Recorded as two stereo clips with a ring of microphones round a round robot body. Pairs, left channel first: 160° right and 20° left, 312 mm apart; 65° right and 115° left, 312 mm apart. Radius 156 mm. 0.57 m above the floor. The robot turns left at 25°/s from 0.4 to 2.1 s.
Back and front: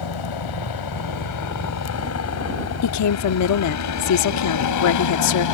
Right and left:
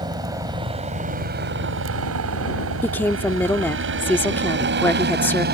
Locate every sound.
0.0 s a helicopter: 170° right; by 5.5 s 175° left
2.8 s a woman speaking: 150° right